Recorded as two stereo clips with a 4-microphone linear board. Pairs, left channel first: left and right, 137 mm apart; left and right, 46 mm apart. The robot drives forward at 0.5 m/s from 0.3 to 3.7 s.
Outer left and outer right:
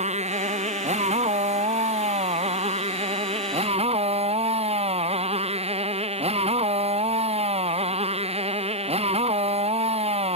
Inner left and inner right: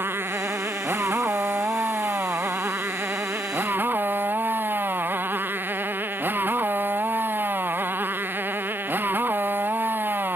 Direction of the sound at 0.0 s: 55° right (ahead or behind).